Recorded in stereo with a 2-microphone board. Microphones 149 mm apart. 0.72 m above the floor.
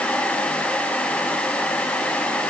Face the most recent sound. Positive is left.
No sound to turn to.